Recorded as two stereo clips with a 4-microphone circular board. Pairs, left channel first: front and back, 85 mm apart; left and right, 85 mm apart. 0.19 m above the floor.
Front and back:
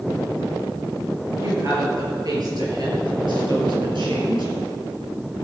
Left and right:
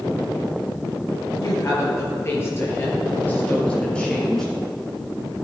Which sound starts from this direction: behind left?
A woman speaking, at 1.4 s.